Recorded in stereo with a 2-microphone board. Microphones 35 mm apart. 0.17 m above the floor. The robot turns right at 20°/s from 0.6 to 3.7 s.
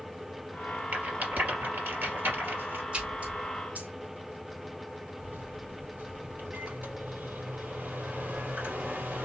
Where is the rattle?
45° right (ahead or behind), 3.5 m; by 2.8 s 65° right (ahead or behind), 3.5 m.